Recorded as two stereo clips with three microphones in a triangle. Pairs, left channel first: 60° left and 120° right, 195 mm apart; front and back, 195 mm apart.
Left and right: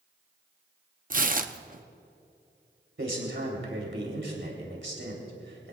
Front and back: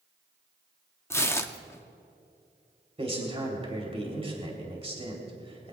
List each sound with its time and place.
1.1 s tearing paper: 75° right, 0.8 m
3.0 s a man speaking: 120° right, 3.5 m